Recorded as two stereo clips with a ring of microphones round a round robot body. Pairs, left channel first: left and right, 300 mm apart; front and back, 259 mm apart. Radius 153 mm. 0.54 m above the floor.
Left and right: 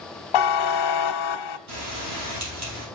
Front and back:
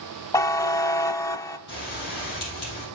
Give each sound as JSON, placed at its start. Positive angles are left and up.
{"t": 0.3, "sound": "a buzzer", "azimuth_deg": 80, "distance_m": 0.5}
{"t": 1.7, "sound": "a bell", "azimuth_deg": -55, "distance_m": 3.5}